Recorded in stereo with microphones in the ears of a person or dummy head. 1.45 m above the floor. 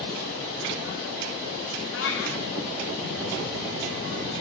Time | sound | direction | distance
1.9 | a cat meowing | 65° left (ahead or behind) | 1.8 m